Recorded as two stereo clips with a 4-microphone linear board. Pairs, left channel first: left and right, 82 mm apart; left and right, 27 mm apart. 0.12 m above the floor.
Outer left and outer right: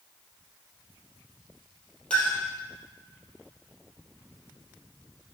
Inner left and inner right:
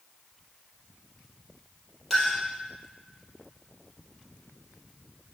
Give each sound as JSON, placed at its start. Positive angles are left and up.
{"t": 2.1, "sound": "a clink", "side_deg": 15, "distance_m": 3.0}